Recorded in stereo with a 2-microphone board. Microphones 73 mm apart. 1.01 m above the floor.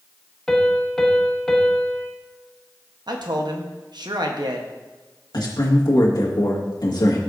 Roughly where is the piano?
Centre.